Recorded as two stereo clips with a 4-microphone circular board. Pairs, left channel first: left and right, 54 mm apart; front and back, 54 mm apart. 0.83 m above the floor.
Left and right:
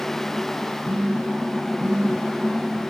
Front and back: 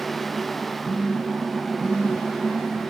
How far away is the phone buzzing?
About 1.0 m.